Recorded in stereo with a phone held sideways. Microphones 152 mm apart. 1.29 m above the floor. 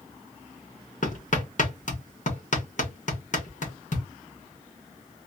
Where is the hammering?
60° left (ahead or behind), 1.4 m.